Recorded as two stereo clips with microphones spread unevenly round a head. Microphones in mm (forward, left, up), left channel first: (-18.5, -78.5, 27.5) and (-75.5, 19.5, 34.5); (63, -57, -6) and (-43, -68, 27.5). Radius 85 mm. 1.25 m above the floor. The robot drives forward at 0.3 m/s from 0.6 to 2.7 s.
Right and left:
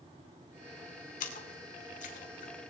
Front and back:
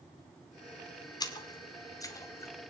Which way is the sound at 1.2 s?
50° right.